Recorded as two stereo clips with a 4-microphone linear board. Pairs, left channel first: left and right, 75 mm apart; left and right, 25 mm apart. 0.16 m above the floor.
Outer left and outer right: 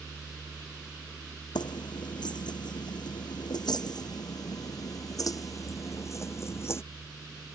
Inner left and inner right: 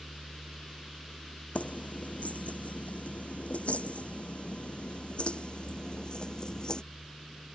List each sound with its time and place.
1.6 s keys jangling: 80° left; by 6.8 s 35° left (ahead or behind)